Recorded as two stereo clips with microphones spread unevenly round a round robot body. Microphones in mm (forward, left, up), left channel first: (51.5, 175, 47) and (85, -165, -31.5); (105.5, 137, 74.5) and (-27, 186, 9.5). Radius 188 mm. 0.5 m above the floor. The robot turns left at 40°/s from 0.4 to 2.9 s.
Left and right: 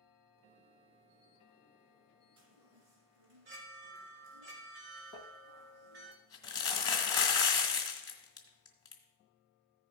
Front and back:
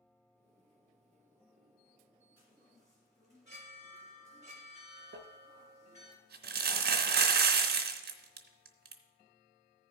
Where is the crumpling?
170° left, 0.7 m.